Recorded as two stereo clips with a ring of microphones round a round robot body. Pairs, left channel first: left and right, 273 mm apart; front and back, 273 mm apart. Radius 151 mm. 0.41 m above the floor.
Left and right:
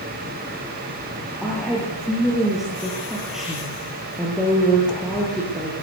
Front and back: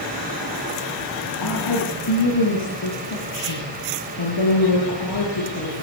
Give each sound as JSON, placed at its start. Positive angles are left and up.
{"t": 1.4, "sound": "a woman speaking", "azimuth_deg": 0, "distance_m": 9.5}